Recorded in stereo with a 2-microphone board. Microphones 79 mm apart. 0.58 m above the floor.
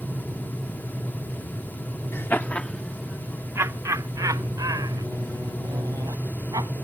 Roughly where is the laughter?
Left.